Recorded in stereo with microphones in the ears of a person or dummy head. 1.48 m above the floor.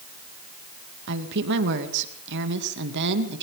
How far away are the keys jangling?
I don't hear keys jangling.